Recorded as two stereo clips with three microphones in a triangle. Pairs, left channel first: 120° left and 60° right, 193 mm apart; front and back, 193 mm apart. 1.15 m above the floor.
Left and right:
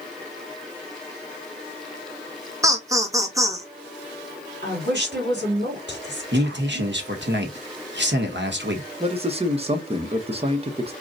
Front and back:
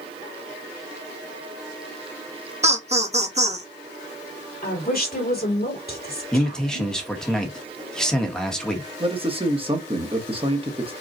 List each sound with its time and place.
2.6 s laughter: 135° right, 1.0 m
4.6 s a woman speaking: 35° right, 2.5 m
6.3 s a man speaking: 85° right, 1.1 m
9.0 s a man speaking: 120° right, 1.0 m